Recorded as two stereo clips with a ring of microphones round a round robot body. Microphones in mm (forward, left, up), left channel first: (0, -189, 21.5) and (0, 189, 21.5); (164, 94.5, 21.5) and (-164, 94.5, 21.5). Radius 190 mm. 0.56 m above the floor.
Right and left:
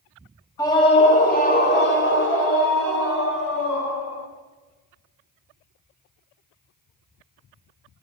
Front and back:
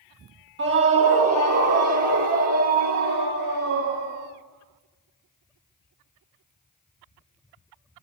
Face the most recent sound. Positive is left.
turn(degrees=-140)